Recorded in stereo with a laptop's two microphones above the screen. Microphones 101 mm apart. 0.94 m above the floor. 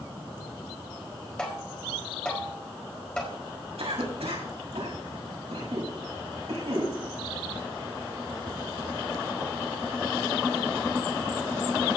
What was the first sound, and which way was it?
Tapping, 10° left (ahead or behind).